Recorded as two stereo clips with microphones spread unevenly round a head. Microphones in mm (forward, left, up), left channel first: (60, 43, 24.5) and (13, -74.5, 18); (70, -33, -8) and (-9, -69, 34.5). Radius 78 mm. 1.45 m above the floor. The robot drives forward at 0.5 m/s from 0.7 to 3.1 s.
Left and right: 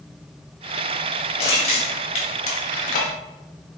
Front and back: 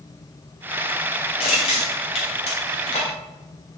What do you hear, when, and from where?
1.4 s crushing: 30° left, 1.3 m; by 3.1 s 70° left, 0.7 m